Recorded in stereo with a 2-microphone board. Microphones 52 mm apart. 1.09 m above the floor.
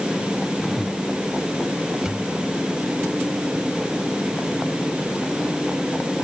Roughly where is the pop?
Centre.